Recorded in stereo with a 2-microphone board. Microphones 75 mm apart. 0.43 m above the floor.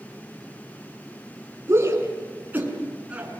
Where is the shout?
35° right (ahead or behind), 6 m; by 3.4 s 15° right (ahead or behind), 6 m.